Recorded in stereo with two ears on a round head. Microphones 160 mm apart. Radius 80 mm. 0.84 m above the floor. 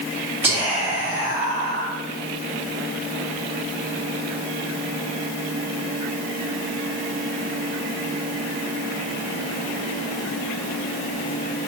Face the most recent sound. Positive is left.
turn(degrees=-20)  # may be behind; listen again after turning